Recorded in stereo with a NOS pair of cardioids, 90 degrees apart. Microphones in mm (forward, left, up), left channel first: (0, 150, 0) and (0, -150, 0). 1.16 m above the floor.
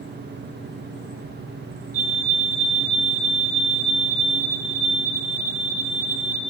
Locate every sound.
0.0 s a fan: 35° right, 1.0 m
1.9 s a fire alarm: 50° right, 4.5 m